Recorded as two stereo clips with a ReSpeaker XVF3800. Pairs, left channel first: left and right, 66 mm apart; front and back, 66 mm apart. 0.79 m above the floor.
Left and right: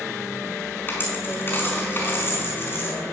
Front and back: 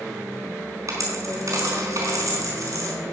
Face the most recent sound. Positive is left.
turn(degrees=145)